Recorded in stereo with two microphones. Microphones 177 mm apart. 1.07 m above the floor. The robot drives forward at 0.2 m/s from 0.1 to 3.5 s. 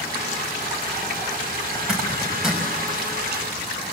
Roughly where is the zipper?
Centre.